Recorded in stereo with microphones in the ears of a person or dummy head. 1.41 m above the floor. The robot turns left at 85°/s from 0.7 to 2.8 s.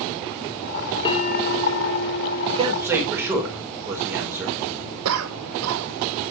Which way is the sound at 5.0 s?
85° right.